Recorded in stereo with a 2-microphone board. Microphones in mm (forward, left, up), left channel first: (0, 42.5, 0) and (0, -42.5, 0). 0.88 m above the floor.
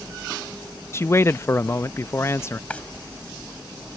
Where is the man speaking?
30° left (ahead or behind).